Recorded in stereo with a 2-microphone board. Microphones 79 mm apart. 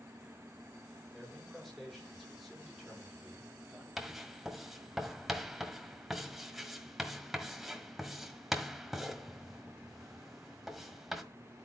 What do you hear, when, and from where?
1.1 s a man speaking: 5° left (ahead or behind), 5.5 m; by 3.9 s 10° right (ahead or behind), 3.5 m
4.0 s writing: 5° right (ahead or behind), 1.5 m